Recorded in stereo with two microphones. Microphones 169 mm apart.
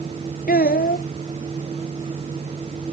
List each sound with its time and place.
0.5 s a child speaking: 65° left (ahead or behind)